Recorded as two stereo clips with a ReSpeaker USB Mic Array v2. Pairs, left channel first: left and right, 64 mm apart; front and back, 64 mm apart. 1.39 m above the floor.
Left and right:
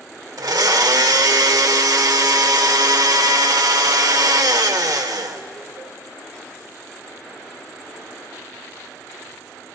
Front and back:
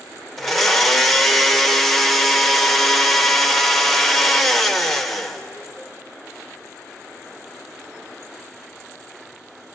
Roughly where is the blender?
Right.